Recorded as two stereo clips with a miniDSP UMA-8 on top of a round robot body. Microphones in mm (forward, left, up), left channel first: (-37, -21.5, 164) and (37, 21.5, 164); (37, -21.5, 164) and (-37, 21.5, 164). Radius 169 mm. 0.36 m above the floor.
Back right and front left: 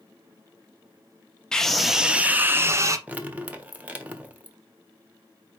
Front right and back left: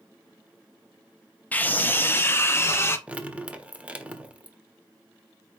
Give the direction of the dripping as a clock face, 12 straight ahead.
9 o'clock.